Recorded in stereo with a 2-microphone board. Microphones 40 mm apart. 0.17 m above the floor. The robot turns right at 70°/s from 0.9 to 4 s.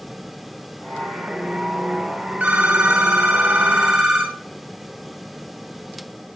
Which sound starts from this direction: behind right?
A phone ringing, at 2.4 s.